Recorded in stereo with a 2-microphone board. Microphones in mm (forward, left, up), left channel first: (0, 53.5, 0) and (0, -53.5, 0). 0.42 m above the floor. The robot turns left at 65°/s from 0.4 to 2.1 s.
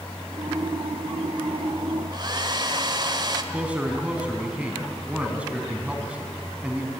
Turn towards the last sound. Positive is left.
turn(degrees=-10)  # may be behind; listen again after turning